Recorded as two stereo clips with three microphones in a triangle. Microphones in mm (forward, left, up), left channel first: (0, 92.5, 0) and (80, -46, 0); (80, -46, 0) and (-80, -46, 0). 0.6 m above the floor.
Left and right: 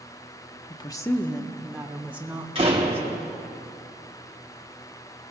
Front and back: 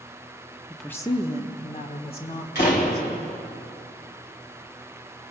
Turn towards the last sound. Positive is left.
turn(degrees=-5)